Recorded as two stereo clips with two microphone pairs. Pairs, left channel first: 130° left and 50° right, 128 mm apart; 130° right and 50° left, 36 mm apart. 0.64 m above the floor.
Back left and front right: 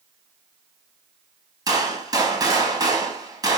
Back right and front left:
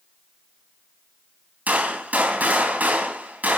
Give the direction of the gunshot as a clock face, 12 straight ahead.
12 o'clock.